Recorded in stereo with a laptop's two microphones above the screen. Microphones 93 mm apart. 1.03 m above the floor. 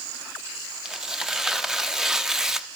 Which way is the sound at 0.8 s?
5° right (ahead or behind).